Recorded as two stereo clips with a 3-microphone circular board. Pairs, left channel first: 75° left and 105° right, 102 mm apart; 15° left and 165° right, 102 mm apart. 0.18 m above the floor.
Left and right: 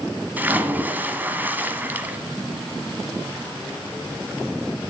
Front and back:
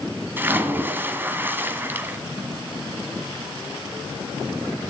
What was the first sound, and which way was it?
A splash, 140° right.